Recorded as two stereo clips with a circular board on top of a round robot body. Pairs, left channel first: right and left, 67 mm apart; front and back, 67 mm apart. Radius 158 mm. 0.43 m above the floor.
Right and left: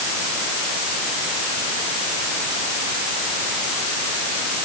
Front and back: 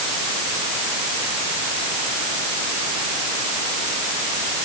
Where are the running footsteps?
No running footsteps in this recording.